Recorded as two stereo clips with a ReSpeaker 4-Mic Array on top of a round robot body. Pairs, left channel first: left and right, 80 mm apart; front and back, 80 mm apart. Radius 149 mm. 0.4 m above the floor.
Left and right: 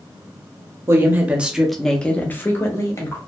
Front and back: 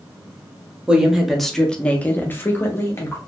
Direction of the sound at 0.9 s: 110° right.